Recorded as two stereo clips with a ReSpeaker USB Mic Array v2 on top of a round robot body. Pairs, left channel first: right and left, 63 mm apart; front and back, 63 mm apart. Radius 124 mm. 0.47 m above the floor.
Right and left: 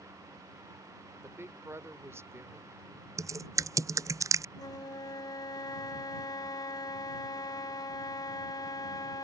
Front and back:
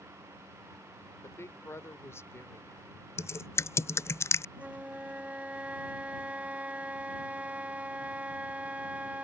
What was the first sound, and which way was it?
A woman speaking, 45° left.